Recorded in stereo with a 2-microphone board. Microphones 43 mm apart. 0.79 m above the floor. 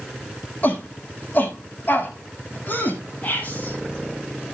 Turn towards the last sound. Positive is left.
turn(degrees=35)  # may be behind; listen again after turning